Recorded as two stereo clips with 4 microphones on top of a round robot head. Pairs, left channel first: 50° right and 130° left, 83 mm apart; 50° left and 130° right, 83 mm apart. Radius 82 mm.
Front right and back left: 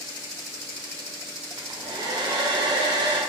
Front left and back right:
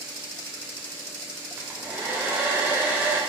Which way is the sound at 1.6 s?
165° left.